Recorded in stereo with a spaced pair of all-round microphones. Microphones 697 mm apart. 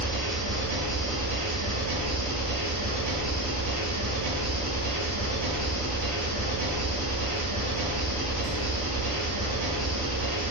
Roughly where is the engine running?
Right.